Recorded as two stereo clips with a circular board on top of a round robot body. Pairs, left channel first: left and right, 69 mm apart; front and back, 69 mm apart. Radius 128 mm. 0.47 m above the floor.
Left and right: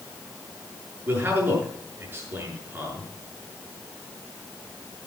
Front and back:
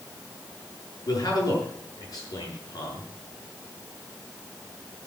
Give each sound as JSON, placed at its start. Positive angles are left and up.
{"t": 1.1, "sound": "a man speaking", "azimuth_deg": -25, "distance_m": 7.5}